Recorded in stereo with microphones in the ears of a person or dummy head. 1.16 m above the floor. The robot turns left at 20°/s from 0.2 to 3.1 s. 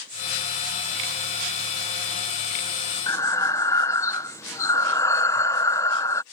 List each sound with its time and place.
3.1 s breathing: 20° left (ahead or behind)